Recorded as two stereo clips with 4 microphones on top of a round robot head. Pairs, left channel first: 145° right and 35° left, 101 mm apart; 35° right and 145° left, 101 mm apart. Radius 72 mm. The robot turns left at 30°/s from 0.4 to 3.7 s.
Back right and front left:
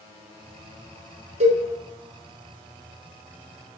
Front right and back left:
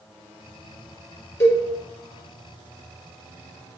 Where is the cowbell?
35° left, 1.5 m; by 1.6 s 30° left, 1.5 m.